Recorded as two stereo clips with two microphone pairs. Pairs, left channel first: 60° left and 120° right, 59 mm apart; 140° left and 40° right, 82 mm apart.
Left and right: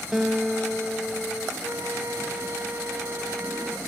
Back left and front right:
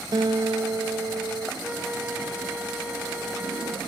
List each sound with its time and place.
0.1 s a guitar: 40° right, 0.9 m
1.6 s a flute: 115° right, 1.7 m